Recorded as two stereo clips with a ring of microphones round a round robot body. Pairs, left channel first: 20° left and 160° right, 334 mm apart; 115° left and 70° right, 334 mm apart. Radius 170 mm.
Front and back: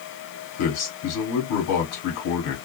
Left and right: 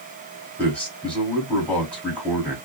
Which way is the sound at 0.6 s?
25° left.